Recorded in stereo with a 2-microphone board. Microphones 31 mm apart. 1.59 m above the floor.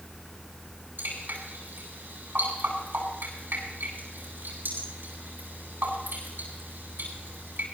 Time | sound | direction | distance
1.0 | dripping | 85° right | 9 m